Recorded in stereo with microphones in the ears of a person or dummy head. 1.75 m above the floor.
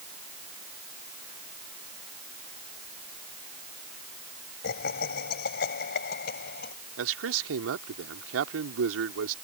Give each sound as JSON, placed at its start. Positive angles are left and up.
{"t": 4.6, "sound": "laughter", "side_deg": 55}
{"t": 7.0, "sound": "a man speaking", "side_deg": -80}